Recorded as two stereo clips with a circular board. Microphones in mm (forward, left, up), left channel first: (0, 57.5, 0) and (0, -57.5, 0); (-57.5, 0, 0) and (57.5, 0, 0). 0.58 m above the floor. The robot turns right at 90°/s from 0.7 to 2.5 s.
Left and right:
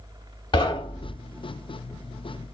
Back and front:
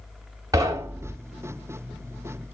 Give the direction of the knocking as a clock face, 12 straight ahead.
10 o'clock.